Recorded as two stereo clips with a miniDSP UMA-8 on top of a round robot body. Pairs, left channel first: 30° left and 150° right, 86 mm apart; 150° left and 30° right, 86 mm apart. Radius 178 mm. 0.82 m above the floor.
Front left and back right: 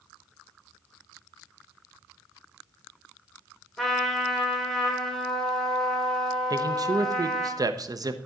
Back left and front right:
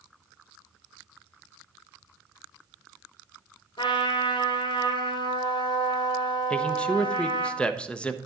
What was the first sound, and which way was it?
A trumpet, 115° left.